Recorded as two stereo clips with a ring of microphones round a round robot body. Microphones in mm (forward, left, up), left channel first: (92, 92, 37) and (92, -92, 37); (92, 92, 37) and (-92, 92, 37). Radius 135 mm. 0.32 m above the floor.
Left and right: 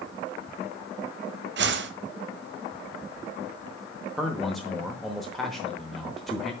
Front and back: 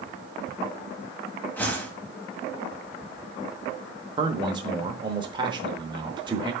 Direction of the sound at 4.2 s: Straight behind.